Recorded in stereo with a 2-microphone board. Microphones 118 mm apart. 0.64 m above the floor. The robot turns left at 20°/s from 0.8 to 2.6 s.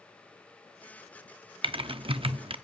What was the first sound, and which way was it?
Typing on a keyboard, 50° right (ahead or behind).